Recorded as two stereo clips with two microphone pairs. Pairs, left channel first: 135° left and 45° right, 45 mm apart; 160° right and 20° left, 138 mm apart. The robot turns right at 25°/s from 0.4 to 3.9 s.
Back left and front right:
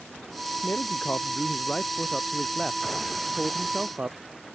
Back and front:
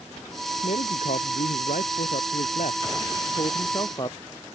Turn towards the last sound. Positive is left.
turn(degrees=-105)